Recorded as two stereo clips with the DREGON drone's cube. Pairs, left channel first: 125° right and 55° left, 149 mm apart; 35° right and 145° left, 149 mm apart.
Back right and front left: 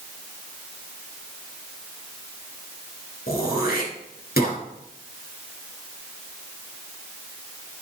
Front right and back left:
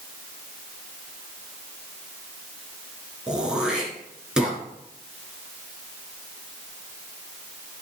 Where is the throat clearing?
130° right, 4 m.